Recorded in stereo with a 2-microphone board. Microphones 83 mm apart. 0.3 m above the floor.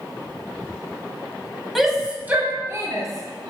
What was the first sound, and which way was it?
A shout, centre (ahead or behind).